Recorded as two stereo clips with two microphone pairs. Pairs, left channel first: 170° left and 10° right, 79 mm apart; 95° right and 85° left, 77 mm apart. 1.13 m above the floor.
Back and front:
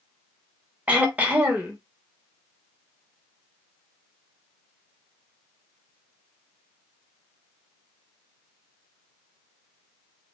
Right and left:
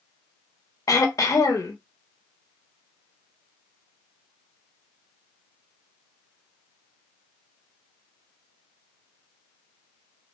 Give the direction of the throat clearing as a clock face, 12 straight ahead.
2 o'clock.